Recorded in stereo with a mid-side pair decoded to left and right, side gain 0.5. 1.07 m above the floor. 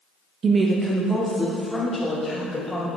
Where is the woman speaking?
45° right, 0.7 m; by 2.9 s 10° left, 3.5 m.